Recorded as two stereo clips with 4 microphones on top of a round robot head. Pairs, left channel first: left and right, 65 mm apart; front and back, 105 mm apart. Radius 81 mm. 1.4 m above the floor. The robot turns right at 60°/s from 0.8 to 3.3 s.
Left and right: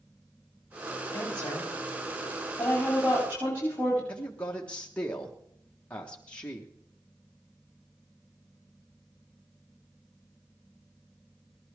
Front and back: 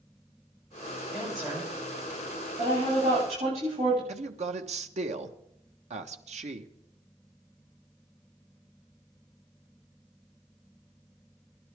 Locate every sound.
1.1 s a woman speaking: 75° left, 9 m; by 4.0 s 155° right, 9 m
4.1 s a man speaking: 165° left, 1.4 m